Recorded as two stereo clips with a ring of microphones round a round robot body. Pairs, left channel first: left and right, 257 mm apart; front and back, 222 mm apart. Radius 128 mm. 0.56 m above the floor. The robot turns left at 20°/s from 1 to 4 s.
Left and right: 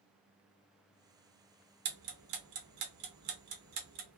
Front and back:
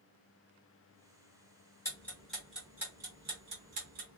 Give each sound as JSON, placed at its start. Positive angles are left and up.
{"t": 1.9, "sound": "ticking", "azimuth_deg": -80, "distance_m": 0.8}